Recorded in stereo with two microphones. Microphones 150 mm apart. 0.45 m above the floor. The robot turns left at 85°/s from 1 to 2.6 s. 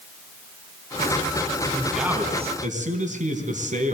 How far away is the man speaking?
About 4 m.